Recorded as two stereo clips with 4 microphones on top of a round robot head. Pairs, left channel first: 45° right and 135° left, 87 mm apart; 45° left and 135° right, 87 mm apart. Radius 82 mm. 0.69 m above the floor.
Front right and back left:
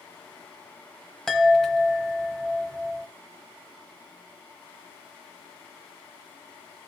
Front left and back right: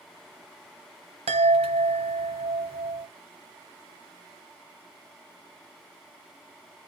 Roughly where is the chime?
Behind right.